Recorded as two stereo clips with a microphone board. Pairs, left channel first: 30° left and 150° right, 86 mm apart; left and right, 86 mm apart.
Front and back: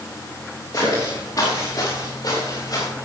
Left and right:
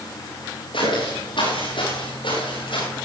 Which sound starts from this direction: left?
Footsteps, at 0.7 s.